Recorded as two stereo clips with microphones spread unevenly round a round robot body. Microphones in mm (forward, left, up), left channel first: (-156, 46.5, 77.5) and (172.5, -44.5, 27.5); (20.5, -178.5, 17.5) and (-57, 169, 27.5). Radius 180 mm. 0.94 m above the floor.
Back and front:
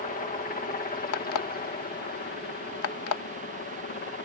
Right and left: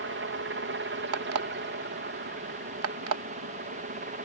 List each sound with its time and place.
0.0 s a helicopter: 110° left; by 4.3 s 130° left
1.1 s an alarm clock: 140° left